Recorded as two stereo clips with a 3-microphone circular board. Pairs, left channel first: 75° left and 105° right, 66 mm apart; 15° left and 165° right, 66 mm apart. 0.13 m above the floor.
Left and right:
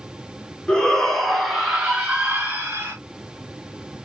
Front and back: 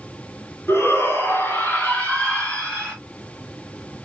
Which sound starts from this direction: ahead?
A shout, at 0.7 s.